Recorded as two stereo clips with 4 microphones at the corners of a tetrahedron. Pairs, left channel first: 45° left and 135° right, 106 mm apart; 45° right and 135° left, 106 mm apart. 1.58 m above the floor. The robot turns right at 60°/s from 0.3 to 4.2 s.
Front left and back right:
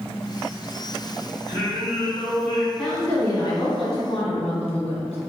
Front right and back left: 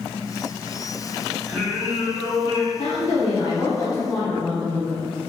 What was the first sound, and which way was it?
Singing, 55° left.